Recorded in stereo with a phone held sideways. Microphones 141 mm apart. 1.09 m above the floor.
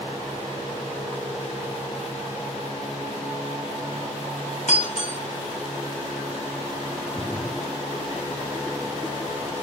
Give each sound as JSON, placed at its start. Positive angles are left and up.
{"t": 4.7, "sound": "breaking glass", "side_deg": 60, "distance_m": 4.5}
{"t": 7.2, "sound": "a splash", "side_deg": 10, "distance_m": 0.8}